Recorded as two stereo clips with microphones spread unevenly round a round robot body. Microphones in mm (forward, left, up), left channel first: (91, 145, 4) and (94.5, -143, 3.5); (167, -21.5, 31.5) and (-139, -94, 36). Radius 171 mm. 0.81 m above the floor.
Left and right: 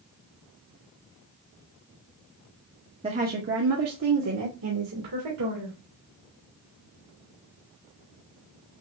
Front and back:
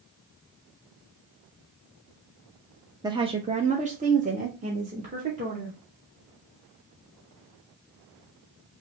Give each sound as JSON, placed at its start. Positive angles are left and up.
{"t": 3.0, "sound": "a woman speaking", "azimuth_deg": -110, "distance_m": 0.7}